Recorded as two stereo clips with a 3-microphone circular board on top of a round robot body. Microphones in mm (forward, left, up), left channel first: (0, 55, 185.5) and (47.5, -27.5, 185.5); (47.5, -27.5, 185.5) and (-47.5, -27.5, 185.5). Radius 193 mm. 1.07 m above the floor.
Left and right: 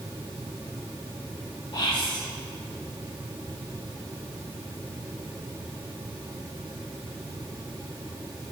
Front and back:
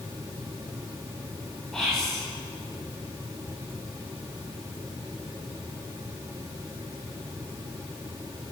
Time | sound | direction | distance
1.7 | whispering | 85° left | 3.5 m